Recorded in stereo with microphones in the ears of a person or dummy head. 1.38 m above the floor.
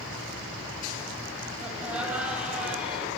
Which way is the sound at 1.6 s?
10° right (ahead or behind).